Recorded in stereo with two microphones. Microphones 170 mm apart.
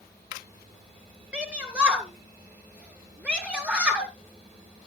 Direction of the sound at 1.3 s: 5° right (ahead or behind).